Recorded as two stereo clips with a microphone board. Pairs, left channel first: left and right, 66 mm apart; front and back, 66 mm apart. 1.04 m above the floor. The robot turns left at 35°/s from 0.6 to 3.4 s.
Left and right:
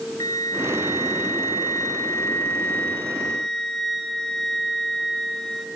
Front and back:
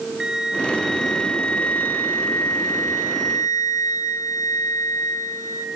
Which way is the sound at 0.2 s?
105° left.